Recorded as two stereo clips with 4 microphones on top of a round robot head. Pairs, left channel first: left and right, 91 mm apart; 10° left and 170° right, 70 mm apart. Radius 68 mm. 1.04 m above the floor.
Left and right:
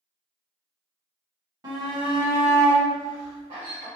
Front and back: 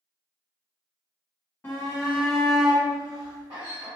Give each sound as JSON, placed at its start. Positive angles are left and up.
{"t": 1.6, "sound": "a shout", "azimuth_deg": -50, "distance_m": 1.0}